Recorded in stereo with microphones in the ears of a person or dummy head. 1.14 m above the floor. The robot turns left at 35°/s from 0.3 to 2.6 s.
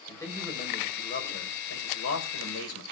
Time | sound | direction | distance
0.1 | a man speaking | 165° left | 4.5 m